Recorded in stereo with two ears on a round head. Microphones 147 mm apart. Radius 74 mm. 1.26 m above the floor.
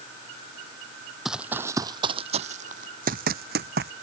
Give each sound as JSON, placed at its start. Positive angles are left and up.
{"t": 1.2, "sound": "running footsteps", "side_deg": 0}